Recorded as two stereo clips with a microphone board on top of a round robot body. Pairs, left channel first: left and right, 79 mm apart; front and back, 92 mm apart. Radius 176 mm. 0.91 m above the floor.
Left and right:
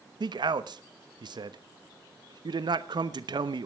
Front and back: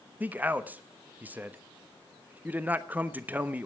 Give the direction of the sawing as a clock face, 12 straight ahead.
No sawing in this recording.